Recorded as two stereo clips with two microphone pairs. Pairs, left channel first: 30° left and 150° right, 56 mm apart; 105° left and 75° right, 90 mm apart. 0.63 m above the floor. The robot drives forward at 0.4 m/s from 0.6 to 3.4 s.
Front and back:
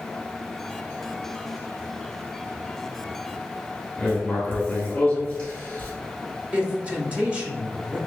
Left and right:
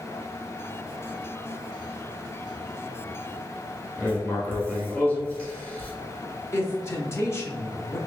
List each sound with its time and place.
4.0 s writing: 65° left, 1.1 m
6.5 s a man speaking: 150° left, 0.7 m